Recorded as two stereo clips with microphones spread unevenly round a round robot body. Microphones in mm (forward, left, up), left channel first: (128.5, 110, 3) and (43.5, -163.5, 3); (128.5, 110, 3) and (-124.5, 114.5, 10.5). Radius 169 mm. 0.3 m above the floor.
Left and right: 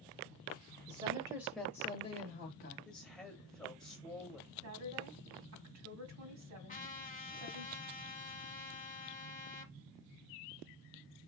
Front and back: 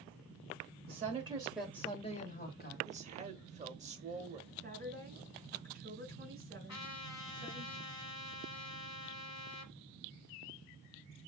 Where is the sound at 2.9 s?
155° left, 0.9 m.